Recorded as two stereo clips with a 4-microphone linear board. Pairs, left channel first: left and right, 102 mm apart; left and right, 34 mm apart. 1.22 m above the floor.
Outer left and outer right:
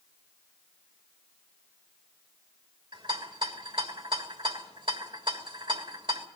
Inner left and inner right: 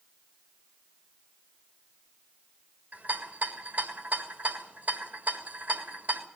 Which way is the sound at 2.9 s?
55° right (ahead or behind).